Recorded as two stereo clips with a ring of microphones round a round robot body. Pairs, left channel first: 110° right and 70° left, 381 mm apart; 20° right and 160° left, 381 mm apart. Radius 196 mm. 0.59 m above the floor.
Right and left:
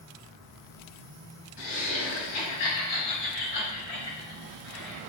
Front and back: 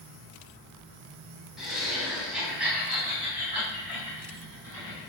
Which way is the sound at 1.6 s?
115° right.